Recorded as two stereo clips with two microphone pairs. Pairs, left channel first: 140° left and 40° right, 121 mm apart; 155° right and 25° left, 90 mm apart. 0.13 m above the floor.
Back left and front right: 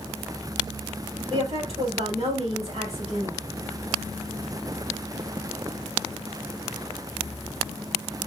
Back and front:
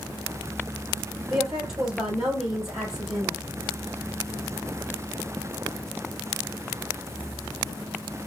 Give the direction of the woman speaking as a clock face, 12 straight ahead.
2 o'clock.